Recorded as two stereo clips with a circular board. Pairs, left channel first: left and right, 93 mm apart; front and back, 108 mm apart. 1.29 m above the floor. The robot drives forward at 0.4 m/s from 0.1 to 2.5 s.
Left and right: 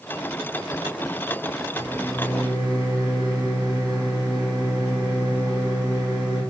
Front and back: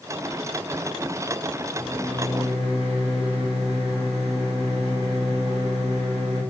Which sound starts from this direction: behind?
A microwave, at 1.7 s.